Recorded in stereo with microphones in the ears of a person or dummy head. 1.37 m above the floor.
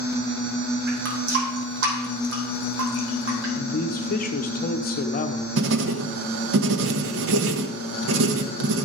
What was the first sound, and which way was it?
A running tap, 65° right (ahead or behind).